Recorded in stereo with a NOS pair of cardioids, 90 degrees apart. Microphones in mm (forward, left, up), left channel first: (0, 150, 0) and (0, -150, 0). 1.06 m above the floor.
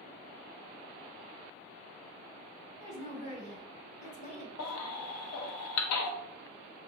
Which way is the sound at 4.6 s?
60° left.